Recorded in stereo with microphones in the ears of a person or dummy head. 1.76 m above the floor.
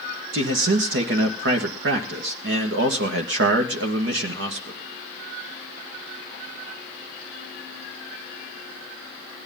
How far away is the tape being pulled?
I don't hear tape being pulled.